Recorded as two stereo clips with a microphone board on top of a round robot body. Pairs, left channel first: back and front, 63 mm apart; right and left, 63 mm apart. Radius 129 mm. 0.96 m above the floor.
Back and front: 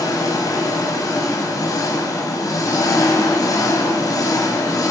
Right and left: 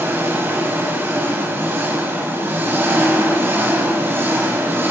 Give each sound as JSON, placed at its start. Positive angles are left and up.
{"t": 0.0, "sound": "an engine running", "azimuth_deg": 150, "distance_m": 2.5}